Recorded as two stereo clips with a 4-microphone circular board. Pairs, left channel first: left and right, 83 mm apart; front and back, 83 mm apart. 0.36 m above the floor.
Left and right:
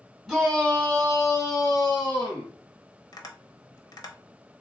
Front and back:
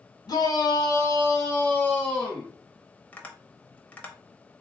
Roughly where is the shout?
Ahead.